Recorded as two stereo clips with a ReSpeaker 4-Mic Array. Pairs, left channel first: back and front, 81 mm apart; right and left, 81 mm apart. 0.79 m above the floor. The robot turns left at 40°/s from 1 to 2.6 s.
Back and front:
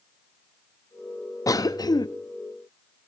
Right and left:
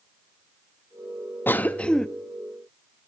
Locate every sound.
1.5 s a cough: 150° right, 0.7 m; by 2.1 s 175° right, 0.7 m